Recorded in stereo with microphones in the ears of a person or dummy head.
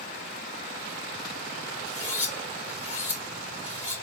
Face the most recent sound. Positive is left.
turn(degrees=-10)  # may be behind; listen again after turning